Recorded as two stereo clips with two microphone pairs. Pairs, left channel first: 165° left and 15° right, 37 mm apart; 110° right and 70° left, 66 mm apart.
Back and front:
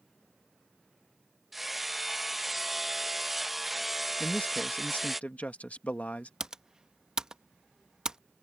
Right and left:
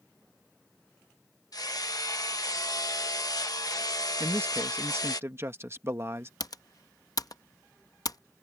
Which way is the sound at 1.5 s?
105° right.